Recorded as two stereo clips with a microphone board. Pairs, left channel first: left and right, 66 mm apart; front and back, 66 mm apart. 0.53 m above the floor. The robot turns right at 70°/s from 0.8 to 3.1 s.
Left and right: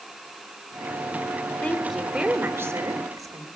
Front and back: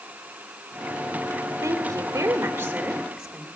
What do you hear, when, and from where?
1.6 s a woman speaking: 170° left, 2 m; by 3.5 s 90° right, 2 m